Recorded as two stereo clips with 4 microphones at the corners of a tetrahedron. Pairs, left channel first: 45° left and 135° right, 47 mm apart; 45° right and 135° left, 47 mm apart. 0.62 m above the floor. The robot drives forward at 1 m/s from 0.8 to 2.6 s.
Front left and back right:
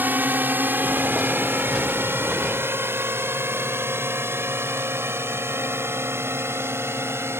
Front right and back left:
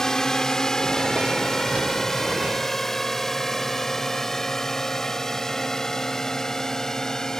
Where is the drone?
120° right; by 7.4 s 125° right.